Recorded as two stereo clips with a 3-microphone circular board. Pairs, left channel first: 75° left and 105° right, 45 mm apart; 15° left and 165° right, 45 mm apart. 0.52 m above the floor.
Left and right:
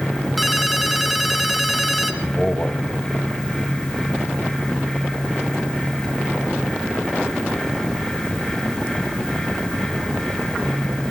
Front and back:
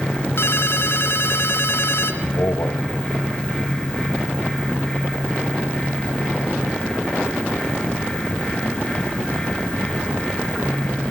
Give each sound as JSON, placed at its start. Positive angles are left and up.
{"t": 0.4, "sound": "a ringtone", "azimuth_deg": -15, "distance_m": 2.5}
{"t": 2.2, "sound": "a man speaking", "azimuth_deg": 10, "distance_m": 2.5}